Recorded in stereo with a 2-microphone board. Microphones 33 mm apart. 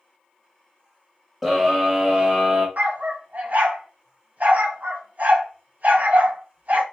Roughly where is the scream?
Centre.